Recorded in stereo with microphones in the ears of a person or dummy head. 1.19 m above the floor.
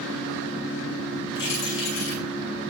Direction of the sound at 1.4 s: 70° left (ahead or behind).